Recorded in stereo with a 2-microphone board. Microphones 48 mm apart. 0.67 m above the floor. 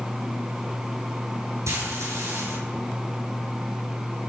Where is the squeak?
No squeak in this recording.